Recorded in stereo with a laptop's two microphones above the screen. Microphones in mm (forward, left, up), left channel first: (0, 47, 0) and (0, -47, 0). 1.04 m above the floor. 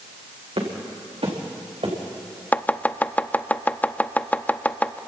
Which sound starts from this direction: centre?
Chopping, at 2.5 s.